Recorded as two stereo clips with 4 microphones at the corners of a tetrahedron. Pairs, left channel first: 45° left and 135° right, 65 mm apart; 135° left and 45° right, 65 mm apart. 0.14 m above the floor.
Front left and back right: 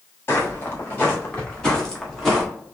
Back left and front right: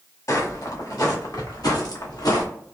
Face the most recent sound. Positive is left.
turn(degrees=135)